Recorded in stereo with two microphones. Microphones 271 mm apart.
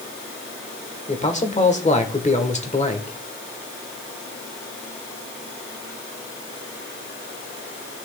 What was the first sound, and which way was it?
A man speaking, 25° left (ahead or behind).